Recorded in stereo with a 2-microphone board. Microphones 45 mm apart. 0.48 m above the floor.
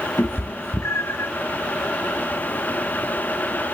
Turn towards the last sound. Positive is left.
turn(degrees=85)